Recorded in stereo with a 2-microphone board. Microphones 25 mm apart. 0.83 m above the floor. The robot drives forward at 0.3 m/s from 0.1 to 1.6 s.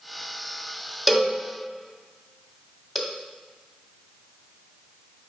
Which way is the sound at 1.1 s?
Centre (ahead or behind).